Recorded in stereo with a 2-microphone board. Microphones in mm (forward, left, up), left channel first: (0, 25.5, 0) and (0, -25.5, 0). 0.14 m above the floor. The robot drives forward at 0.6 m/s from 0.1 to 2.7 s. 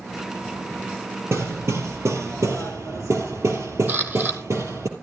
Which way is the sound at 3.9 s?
35° right (ahead or behind).